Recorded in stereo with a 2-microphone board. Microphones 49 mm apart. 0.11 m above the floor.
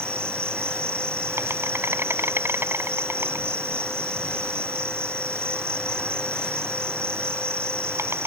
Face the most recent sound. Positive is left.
turn(degrees=-60)  # may be behind; listen again after turning